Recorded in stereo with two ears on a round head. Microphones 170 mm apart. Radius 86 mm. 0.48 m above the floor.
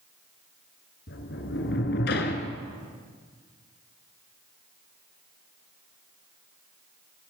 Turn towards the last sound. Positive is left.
turn(degrees=60)  # may be behind; listen again after turning